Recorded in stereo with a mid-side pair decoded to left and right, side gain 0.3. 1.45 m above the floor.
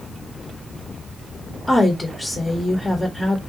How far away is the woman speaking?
About 1.5 m.